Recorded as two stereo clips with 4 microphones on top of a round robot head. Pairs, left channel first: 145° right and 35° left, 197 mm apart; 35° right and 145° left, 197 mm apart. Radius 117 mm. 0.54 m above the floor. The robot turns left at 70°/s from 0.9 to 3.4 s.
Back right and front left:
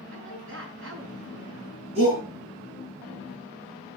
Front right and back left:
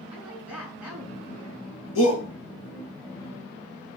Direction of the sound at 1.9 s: 25° right.